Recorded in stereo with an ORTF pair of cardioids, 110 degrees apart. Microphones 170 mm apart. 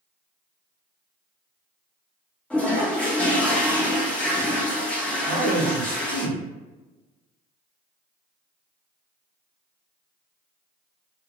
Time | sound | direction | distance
2.5 | a toilet flushing | 5° left | 1.2 m
5.3 | a man speaking | 10° left | 1.9 m